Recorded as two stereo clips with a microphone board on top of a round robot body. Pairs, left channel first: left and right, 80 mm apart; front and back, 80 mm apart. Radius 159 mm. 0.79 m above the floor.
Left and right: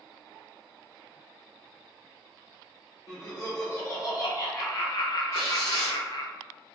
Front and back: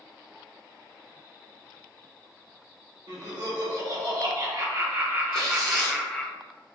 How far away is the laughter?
About 2.0 m.